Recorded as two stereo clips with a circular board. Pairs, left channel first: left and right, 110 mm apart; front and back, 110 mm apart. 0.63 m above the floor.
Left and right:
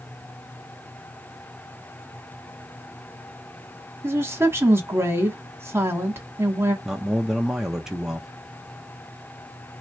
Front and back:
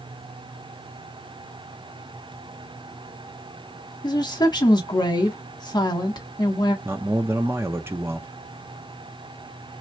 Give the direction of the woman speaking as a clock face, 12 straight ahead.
1 o'clock.